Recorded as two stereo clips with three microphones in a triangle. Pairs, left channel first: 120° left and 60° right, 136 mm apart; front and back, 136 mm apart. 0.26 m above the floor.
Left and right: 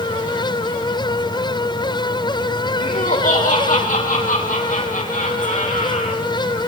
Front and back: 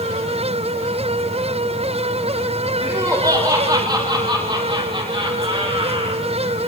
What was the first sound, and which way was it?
Laughter, 110° left.